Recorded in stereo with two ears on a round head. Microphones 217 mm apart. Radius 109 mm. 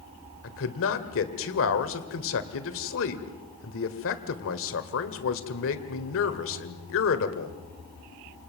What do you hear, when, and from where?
0.4 s a man speaking: 55° left (ahead or behind), 1.9 m